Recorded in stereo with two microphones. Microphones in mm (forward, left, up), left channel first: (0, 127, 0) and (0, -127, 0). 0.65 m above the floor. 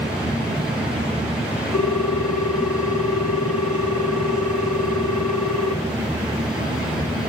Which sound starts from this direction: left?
A ringtone, at 1.7 s.